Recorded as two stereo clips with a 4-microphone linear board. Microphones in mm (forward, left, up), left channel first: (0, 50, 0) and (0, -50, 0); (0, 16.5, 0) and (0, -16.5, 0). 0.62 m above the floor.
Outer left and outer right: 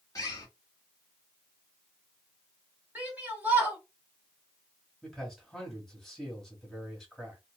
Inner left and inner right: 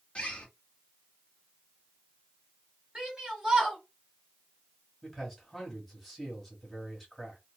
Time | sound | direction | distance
0.1 | a bird | 35° left (ahead or behind) | 1.1 m
3.0 | a shout | 20° right (ahead or behind) | 1.8 m
5.0 | a man speaking | 5° left (ahead or behind) | 1.3 m